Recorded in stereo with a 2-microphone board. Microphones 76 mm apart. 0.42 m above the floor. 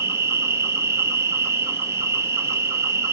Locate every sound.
0.0 s an insect: 35° right (ahead or behind), 0.8 m